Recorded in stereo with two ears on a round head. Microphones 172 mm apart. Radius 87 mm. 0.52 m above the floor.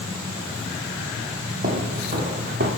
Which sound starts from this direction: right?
Footsteps, at 1.6 s.